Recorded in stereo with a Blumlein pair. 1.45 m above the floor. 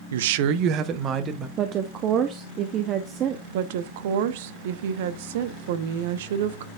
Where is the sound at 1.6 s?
30° right, 0.9 m.